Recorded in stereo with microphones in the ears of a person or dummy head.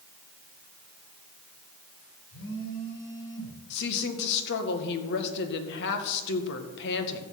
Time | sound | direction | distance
2.3 | a phone buzzing | 70° left (ahead or behind) | 4 m
3.7 | a woman speaking | 60° left (ahead or behind) | 1.9 m